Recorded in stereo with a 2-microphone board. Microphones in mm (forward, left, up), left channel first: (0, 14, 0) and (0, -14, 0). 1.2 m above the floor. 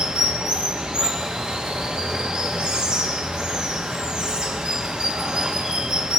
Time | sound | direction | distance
0.0 | running water | 30° right (ahead or behind) | 1.2 m